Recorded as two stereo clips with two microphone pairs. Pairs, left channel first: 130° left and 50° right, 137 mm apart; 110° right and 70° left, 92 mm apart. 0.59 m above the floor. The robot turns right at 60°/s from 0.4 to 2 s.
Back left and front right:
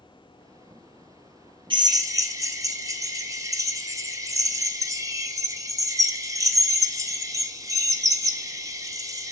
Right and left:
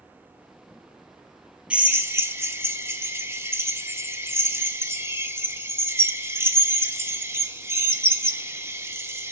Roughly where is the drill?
Ahead.